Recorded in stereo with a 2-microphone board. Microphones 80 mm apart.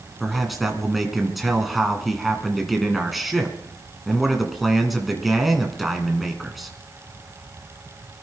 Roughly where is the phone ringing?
I don't hear a phone ringing.